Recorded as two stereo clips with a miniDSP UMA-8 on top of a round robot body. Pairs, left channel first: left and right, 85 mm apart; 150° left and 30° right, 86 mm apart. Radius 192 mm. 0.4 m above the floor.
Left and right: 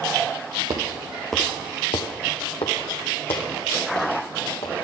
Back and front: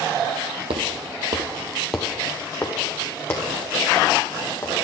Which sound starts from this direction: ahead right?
Footsteps, at 0.7 s.